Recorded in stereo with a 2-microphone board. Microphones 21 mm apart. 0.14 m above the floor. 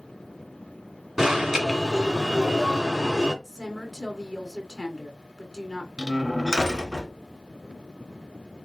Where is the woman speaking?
15° right (ahead or behind), 1.3 m.